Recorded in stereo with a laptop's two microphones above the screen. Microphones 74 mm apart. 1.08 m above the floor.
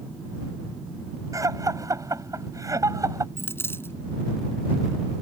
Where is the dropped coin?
35° left (ahead or behind).